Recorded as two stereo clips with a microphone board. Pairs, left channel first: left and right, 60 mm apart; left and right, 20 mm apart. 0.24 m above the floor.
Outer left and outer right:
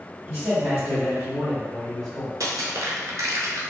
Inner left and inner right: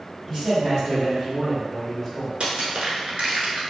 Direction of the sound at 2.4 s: 80° right.